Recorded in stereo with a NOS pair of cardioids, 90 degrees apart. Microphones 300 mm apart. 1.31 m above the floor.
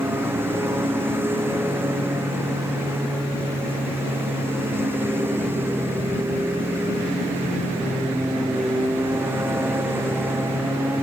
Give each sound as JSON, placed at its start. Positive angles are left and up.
{"t": 0.0, "sound": "a lawn mower", "azimuth_deg": -10}